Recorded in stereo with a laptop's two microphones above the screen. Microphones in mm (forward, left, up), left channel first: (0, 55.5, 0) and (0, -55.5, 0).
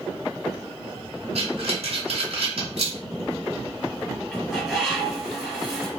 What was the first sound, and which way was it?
Breathing, 70° right (ahead or behind).